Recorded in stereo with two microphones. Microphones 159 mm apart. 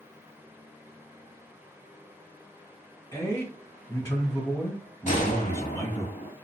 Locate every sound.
3.1 s a man speaking: 25° left (ahead or behind), 1.7 m
5.1 s a gunshot: 50° left (ahead or behind), 0.8 m